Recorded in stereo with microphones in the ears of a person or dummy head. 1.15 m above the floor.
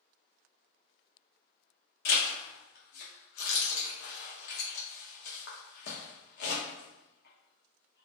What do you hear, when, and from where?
2.0 s a zipper: 55° left (ahead or behind), 0.9 m